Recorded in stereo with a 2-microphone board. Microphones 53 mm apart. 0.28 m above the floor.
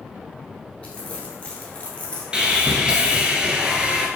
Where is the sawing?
20° right (ahead or behind), 0.6 m.